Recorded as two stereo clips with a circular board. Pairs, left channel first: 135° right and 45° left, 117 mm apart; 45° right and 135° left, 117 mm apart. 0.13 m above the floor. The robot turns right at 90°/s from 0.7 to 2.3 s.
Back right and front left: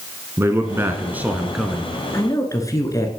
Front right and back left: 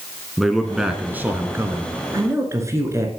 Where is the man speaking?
50° left, 1.0 m; by 1.9 s 165° left, 1.0 m.